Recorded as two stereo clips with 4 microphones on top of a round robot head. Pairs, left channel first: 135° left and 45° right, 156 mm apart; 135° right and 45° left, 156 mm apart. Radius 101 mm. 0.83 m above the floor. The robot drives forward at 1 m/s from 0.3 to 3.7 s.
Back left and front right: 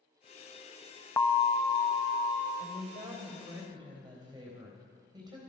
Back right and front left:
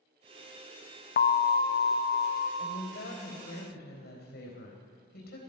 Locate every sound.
1.2 s an alarm: 150° right, 0.6 m; by 2.5 s 170° right, 1.8 m
2.6 s a woman speaking: 100° right, 3 m; by 5.4 s 115° right, 3.5 m